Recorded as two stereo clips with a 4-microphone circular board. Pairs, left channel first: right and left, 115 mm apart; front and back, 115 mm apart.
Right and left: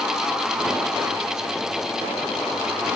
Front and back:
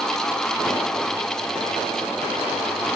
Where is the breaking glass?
I don't hear breaking glass.